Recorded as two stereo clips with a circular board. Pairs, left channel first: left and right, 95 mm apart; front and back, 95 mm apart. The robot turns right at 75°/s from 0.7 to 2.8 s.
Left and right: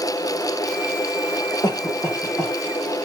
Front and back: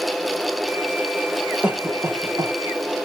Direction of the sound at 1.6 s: 105° left.